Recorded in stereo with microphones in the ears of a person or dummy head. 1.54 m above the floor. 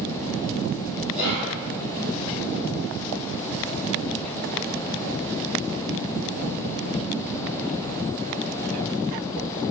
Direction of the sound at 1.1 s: 75° left (ahead or behind).